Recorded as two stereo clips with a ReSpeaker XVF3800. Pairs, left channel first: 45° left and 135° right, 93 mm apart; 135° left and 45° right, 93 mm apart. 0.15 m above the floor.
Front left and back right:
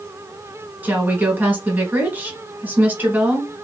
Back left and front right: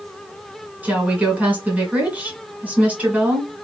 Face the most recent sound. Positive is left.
turn(degrees=-95)